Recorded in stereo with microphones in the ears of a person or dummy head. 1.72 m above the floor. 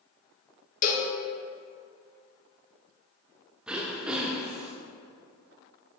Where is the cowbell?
45° left (ahead or behind), 1.2 m.